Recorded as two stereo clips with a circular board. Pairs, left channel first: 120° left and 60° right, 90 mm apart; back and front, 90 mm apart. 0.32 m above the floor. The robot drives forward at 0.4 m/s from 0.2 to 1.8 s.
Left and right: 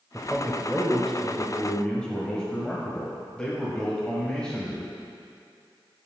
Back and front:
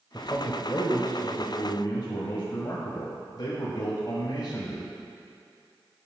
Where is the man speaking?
145° right, 1.0 m; by 4.9 s 165° right, 1.3 m.